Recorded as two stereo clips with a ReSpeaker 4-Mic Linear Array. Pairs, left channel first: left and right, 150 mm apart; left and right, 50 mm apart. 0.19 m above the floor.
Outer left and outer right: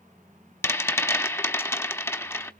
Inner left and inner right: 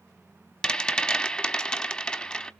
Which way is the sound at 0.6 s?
15° left (ahead or behind).